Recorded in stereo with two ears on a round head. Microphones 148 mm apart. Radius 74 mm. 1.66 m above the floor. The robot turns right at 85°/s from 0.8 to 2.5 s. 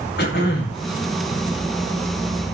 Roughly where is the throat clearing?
Left.